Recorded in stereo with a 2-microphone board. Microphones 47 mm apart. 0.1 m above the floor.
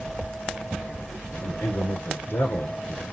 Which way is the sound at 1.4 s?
55° left (ahead or behind).